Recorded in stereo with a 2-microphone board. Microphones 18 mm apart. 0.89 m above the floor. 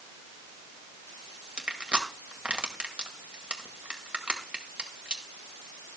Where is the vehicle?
I don't hear a vehicle.